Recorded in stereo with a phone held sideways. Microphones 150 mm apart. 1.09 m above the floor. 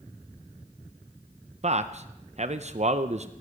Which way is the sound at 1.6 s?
50° right (ahead or behind).